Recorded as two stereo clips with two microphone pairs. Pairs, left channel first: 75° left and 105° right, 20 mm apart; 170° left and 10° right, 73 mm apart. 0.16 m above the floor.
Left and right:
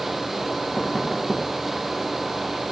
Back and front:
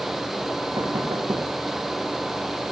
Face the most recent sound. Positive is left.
turn(degrees=-10)